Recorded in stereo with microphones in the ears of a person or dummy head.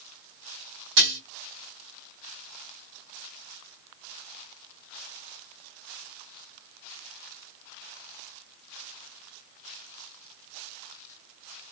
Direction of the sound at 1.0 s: 65° right (ahead or behind).